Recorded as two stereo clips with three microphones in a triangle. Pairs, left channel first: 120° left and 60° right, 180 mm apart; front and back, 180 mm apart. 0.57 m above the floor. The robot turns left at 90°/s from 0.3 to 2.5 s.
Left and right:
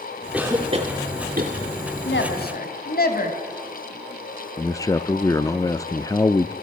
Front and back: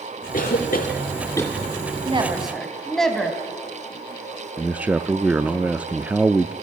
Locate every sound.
0.3 s a cough: 25° left, 1.6 m; by 1.5 s 85° right, 1.6 m
2.0 s a woman speaking: 130° left, 3.5 m; by 3.4 s 90° left, 3.5 m
4.6 s a man speaking: 115° left, 0.6 m